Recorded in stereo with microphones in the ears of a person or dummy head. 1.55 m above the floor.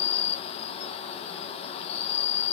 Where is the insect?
35° left (ahead or behind), 1.2 m.